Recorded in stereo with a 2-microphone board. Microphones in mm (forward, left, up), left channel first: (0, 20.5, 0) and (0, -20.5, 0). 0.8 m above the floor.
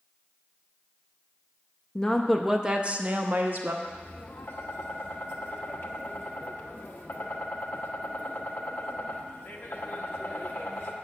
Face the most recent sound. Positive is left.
turn(degrees=75)  # may be behind; listen again after turning